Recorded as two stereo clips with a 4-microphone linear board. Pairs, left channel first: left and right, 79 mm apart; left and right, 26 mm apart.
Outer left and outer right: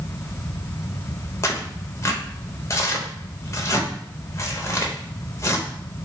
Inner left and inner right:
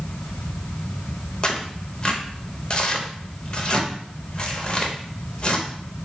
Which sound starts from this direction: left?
Tearing paper, at 1.4 s.